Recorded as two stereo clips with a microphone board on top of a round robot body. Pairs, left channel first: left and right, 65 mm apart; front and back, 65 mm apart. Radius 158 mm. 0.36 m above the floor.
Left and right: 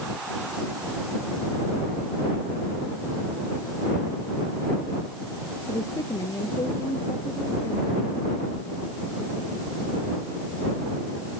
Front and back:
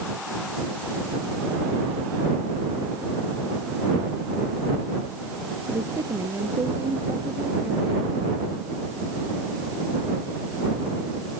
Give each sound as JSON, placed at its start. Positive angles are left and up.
{"t": 5.7, "sound": "a woman speaking", "azimuth_deg": 135}